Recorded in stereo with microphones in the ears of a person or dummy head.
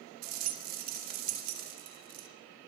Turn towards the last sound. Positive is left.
turn(degrees=-45)  # may be behind; listen again after turning